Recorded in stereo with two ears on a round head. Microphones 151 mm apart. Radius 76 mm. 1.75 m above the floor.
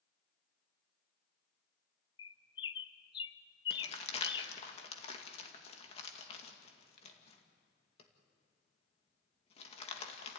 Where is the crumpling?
40° left (ahead or behind), 2 m.